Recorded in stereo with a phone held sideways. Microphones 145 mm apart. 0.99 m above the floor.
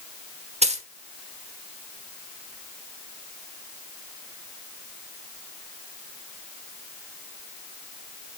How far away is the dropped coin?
About 1.0 m.